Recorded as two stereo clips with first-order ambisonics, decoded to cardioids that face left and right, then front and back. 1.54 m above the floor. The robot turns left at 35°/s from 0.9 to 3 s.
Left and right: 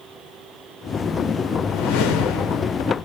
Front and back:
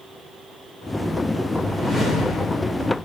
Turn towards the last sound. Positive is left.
turn(degrees=55)